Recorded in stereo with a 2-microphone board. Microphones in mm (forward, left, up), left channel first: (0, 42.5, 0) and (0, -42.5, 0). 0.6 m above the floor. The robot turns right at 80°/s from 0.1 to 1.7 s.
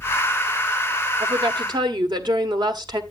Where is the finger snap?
I don't hear a finger snap.